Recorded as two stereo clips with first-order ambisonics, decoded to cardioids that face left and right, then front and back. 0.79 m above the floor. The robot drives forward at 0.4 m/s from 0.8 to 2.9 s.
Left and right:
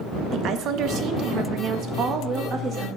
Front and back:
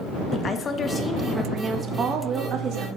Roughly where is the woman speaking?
Ahead right.